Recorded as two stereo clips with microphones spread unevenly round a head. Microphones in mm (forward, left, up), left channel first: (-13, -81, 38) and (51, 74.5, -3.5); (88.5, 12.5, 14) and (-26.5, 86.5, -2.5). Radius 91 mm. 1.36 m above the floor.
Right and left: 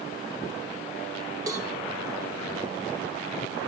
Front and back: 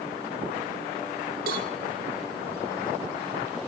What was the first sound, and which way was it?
A cowbell, 145° left.